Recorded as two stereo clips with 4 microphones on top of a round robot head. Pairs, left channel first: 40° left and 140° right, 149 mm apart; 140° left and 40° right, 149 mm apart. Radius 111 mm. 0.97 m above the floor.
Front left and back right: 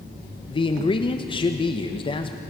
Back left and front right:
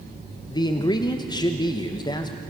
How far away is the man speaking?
About 1.3 m.